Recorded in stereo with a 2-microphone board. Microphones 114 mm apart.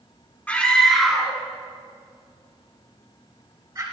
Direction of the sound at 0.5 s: 10° left (ahead or behind).